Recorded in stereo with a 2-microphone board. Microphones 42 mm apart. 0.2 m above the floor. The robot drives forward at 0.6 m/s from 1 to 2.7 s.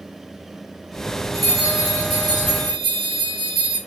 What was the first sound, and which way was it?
A bell, 5° left (ahead or behind).